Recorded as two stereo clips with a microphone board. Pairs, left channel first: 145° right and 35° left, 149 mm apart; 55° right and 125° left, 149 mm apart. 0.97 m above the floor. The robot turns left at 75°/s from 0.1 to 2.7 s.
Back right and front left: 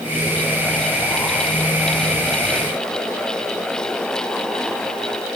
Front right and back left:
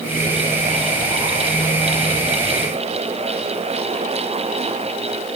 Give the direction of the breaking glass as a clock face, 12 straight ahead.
I don't hear breaking glass.